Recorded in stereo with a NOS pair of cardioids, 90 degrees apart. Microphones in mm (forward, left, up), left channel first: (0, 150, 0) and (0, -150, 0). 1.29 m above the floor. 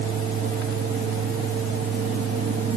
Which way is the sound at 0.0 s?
30° right.